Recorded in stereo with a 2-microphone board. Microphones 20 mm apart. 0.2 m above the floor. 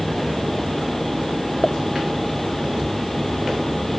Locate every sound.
1.6 s a pop: 70° left (ahead or behind)